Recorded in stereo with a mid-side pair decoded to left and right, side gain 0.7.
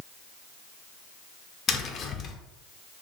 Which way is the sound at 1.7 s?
40° left.